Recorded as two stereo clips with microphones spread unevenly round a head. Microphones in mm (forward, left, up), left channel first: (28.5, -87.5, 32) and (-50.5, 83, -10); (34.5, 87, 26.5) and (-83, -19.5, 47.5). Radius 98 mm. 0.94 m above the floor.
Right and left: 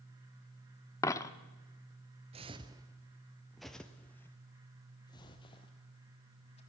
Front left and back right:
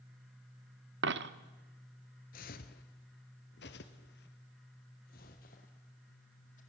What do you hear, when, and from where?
1.0 s a dropped coin: 135° right, 0.8 m
2.3 s footsteps: 50° left, 1.1 m; by 6.6 s 15° right, 2.5 m